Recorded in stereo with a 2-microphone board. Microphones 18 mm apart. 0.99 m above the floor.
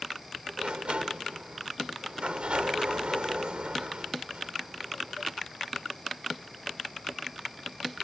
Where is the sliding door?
75° right (ahead or behind).